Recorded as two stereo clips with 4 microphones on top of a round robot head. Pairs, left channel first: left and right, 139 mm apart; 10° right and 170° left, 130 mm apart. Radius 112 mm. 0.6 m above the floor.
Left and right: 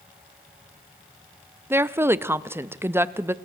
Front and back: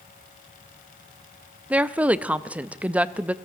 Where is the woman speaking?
130° right, 0.6 m.